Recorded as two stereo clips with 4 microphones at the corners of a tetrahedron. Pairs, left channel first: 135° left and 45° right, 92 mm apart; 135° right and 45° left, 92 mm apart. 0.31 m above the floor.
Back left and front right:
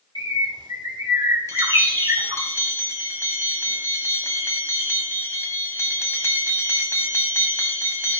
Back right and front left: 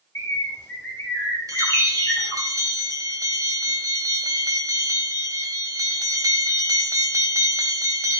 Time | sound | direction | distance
0.1 | a bird | 75° right | 3 m
1.5 | a bell | 85° left | 1.5 m